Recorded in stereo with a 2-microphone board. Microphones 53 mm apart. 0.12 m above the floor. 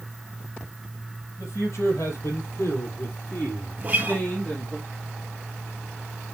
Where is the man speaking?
70° left (ahead or behind), 3.5 m; by 4.8 s 25° left (ahead or behind), 3 m.